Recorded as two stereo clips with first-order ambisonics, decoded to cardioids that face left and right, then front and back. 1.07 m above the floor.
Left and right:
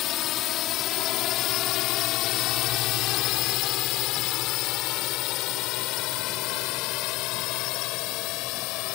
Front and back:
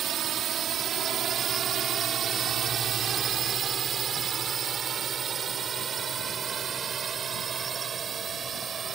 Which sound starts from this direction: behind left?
A drone, at 0.0 s.